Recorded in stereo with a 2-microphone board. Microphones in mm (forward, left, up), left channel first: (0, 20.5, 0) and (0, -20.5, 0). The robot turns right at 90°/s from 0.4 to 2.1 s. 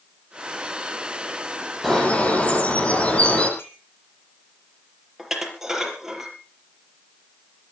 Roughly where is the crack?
No crack in this recording.